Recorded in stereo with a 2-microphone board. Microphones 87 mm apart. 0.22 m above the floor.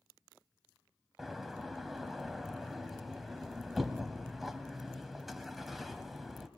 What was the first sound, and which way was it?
A door slam, centre (ahead or behind).